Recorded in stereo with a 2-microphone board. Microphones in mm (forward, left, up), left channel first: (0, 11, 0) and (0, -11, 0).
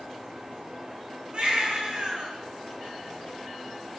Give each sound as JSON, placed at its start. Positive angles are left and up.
{"t": 1.3, "sound": "a baby crying", "side_deg": -50, "distance_m": 7.0}